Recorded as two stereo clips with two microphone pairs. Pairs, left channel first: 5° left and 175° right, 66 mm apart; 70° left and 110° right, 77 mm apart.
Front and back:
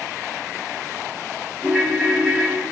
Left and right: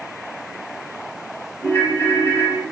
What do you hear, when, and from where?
1.6 s a ringtone: 100° left, 0.7 m